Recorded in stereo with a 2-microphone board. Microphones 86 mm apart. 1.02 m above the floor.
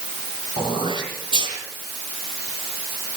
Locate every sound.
0.6 s throat clearing: 75° right (ahead or behind), 10 m